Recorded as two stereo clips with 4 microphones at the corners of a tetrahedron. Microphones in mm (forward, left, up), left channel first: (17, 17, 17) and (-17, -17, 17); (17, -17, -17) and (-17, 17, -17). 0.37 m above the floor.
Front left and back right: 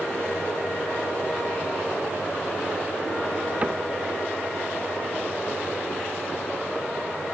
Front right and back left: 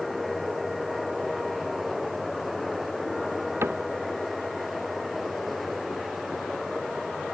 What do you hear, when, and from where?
3.6 s a cupboard door: 165° left